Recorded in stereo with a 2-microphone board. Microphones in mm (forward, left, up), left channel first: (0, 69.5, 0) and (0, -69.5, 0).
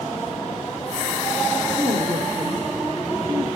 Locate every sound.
1.7 s a woman speaking: 50° right (ahead or behind), 3 m; by 3.5 s 20° right (ahead or behind), 3 m